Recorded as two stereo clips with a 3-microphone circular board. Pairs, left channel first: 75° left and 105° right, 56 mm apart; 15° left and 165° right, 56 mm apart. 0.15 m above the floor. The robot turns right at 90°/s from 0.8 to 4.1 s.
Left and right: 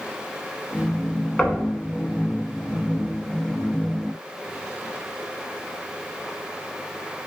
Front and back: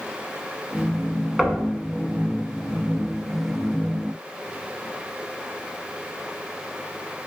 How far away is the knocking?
About 0.8 m.